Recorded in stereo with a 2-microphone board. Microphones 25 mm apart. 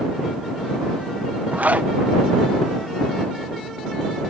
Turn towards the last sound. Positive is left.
turn(degrees=-75)  # may be behind; listen again after turning